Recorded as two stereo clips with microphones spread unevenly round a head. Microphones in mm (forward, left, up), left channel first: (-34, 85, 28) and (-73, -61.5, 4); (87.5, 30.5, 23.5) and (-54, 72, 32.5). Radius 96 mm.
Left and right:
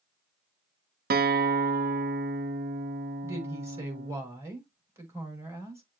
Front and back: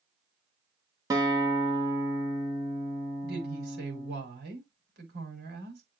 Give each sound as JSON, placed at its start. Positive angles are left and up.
{"t": 1.1, "sound": "a guitar", "azimuth_deg": -125, "distance_m": 0.9}
{"t": 3.2, "sound": "a woman speaking", "azimuth_deg": -175, "distance_m": 5.5}